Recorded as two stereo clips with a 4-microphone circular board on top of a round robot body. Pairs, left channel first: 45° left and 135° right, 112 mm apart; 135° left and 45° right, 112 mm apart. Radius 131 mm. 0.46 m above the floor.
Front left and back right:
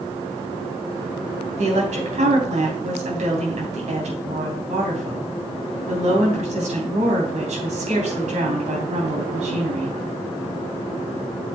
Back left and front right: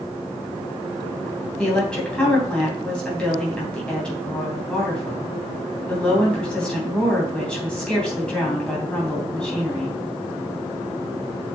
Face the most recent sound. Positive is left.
turn(degrees=-145)